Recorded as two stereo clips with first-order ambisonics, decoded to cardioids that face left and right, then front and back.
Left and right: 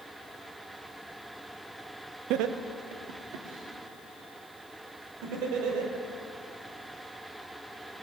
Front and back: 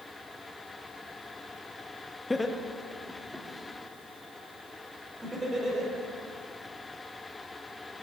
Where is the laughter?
80° right, 0.6 m; by 5.9 s 95° right, 3 m.